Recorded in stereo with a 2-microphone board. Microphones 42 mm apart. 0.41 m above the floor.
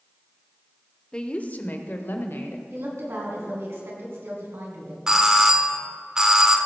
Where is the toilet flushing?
I don't hear a toilet flushing.